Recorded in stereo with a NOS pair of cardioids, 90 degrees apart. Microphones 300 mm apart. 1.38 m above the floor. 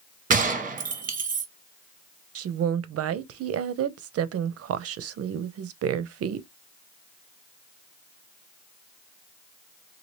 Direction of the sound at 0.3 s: 25° right.